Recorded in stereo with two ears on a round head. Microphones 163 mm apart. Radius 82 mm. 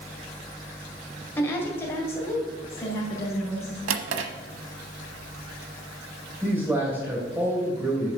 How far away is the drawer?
About 0.9 m.